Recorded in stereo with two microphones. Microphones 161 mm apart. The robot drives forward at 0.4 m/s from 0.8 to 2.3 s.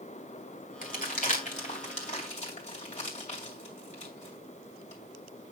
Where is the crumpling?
60° left (ahead or behind), 2 m; by 5.5 s 45° left (ahead or behind), 2.5 m.